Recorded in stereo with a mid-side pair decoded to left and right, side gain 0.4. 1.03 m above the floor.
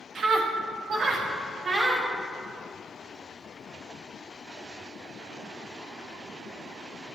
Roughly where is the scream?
Ahead right.